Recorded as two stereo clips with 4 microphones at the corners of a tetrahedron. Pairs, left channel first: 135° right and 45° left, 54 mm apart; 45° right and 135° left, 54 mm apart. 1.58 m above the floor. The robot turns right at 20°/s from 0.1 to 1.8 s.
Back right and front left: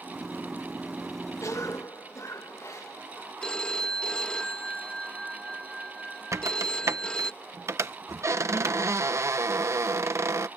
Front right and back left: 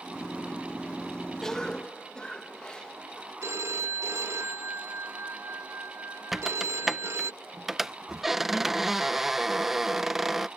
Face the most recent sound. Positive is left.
turn(degrees=50)